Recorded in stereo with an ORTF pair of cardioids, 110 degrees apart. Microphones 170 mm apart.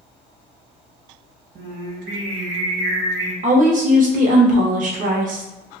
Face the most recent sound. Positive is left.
turn(degrees=-45)